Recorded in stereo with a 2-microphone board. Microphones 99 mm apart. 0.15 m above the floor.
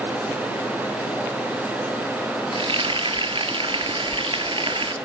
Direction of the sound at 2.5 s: 75° right (ahead or behind).